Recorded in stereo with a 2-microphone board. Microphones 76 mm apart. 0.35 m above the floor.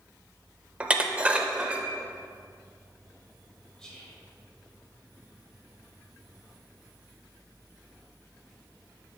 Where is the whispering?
10° left (ahead or behind), 1.7 m.